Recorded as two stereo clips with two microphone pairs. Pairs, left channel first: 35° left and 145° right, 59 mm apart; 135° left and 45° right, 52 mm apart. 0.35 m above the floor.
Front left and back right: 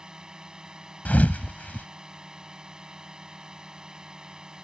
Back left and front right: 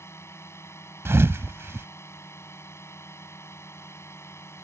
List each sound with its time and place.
0.0 s a drone: 140° left
1.1 s a thud: 20° right